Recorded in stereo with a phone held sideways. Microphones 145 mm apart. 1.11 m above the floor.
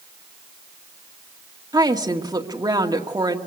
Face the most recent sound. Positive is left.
turn(degrees=-25)  # may be behind; listen again after turning